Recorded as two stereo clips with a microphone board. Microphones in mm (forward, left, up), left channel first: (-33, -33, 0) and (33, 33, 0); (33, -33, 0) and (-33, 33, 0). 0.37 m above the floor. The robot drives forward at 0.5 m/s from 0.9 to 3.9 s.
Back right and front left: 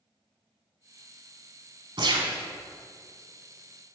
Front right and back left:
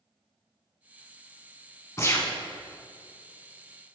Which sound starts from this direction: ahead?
A gunshot, at 2.0 s.